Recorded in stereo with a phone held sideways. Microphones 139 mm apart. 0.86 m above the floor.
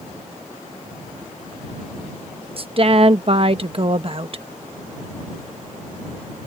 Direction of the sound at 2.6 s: 45° right (ahead or behind).